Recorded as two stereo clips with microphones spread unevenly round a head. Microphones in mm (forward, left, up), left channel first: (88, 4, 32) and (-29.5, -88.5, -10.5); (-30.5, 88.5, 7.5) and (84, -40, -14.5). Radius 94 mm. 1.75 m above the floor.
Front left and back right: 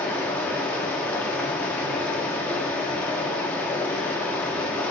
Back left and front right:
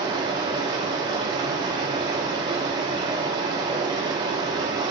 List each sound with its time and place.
0.0 s running water: 5° left, 1.3 m